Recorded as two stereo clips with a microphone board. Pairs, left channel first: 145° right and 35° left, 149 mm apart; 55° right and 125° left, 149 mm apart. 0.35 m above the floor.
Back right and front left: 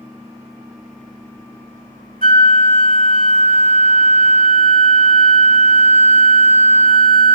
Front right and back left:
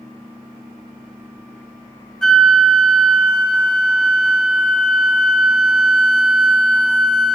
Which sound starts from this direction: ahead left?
A flute, at 2.2 s.